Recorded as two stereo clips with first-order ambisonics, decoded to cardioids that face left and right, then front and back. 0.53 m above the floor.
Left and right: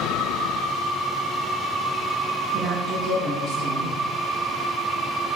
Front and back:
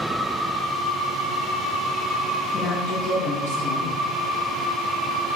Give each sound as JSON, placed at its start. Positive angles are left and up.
{"t": 2.5, "sound": "a woman speaking", "azimuth_deg": 0, "distance_m": 3.5}